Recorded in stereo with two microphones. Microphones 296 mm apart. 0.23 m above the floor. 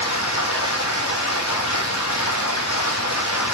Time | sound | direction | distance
0.0 | running water | 65° left (ahead or behind) | 2 m